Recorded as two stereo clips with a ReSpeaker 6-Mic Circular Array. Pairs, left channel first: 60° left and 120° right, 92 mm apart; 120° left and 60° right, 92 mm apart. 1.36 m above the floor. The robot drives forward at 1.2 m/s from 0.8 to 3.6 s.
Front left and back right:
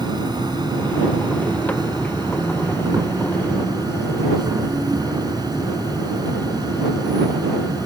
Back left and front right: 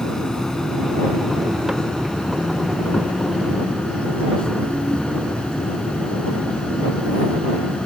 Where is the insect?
155° right; by 7.8 s 160° right.